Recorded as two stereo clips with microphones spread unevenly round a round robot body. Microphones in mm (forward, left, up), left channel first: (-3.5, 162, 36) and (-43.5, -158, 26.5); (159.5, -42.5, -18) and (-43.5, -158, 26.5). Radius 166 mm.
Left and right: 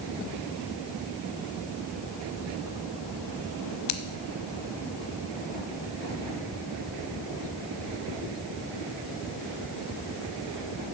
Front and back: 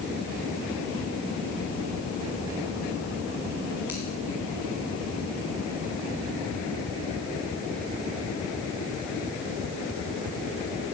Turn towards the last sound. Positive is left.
turn(degrees=125)